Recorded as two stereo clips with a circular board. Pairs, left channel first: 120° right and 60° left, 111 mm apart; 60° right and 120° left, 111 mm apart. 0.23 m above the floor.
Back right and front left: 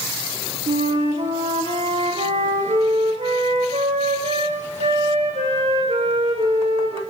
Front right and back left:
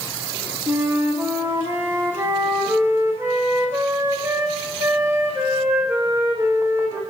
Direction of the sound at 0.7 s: 55° left.